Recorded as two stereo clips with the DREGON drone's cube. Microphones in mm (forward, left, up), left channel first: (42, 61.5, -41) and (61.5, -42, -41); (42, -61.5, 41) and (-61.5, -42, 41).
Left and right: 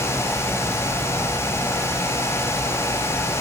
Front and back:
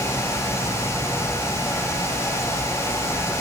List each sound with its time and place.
Only background noise.